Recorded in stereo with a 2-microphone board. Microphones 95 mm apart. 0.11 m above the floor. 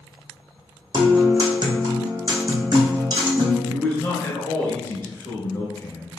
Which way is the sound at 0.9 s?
50° right (ahead or behind).